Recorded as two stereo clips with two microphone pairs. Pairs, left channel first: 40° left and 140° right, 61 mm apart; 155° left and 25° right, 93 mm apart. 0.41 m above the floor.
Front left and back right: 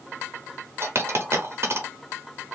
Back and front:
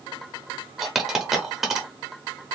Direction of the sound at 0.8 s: 110° right.